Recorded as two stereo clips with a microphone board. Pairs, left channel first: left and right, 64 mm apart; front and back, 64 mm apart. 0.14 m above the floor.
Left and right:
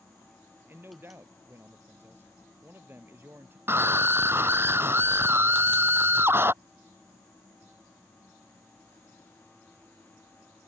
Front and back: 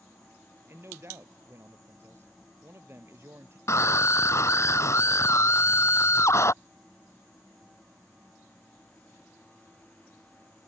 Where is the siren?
I don't hear a siren.